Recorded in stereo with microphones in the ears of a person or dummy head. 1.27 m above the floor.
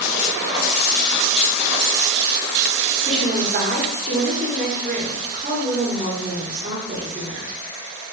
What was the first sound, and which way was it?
A woman speaking, 45° right (ahead or behind).